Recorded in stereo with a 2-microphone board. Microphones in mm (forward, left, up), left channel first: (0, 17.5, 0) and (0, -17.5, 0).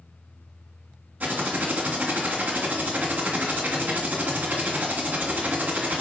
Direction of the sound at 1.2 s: 50° right (ahead or behind).